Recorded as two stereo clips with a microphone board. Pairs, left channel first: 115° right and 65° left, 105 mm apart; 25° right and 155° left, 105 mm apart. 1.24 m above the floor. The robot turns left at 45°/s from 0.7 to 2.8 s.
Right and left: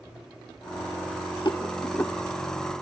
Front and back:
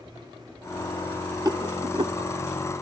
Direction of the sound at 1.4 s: 155° right.